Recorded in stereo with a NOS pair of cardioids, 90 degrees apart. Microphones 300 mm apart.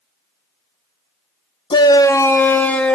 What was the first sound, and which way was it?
A shout, 15° left.